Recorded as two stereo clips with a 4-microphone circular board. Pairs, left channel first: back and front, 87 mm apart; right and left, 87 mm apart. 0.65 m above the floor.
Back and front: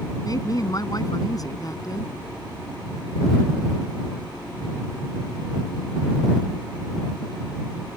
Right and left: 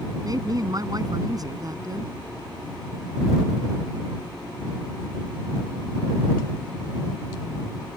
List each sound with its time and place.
0.2 s a woman speaking: 135° left